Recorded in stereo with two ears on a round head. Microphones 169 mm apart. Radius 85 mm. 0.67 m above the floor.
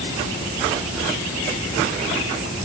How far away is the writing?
I don't hear writing.